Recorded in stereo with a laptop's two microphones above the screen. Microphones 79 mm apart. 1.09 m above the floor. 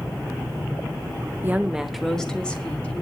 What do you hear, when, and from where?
1.4 s a woman speaking: 25° right (ahead or behind), 0.9 m; by 3.0 s 20° left (ahead or behind), 2.5 m